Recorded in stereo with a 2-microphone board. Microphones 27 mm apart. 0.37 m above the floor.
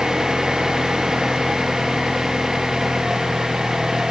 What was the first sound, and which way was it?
An engine running, 15° right (ahead or behind).